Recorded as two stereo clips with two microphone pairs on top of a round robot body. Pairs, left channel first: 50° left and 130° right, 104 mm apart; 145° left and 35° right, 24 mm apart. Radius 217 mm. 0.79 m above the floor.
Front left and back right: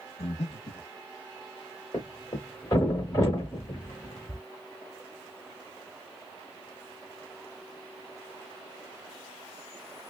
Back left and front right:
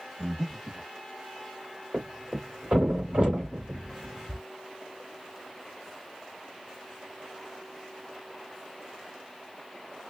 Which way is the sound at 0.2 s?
50° left.